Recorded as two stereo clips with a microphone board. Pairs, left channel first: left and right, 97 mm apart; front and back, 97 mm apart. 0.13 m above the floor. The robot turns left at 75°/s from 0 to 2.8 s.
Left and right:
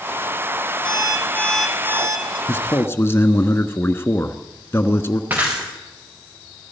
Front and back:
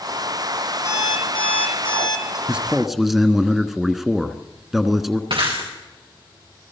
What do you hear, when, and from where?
0.8 s an alarm clock: 60° left, 3 m; by 2.4 s 55° right, 3 m
2.5 s a man speaking: 120° left, 1.2 m; by 5.2 s 95° left, 1.2 m
5.3 s breaking glass: 160° right, 5.5 m